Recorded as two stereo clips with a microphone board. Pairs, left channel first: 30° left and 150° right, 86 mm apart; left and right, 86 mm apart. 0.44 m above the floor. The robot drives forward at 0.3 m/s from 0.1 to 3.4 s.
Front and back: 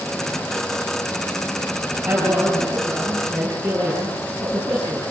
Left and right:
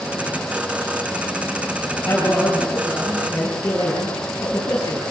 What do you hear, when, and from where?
2.0 s a man speaking: 165° left, 6.5 m